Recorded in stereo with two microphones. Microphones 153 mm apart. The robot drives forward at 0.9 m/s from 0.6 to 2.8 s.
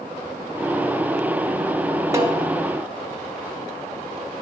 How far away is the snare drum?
About 3 m.